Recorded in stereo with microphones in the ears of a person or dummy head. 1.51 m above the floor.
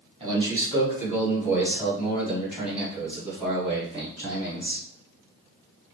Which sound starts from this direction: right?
A man speaking, at 0.2 s.